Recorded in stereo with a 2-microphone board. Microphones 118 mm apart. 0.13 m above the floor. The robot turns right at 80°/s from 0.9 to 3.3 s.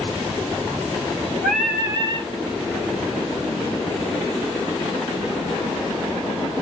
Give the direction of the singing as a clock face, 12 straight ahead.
6 o'clock.